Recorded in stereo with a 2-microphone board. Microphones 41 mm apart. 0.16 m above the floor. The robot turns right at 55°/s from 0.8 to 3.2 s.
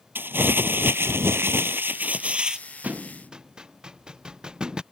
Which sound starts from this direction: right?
A thud, at 2.8 s.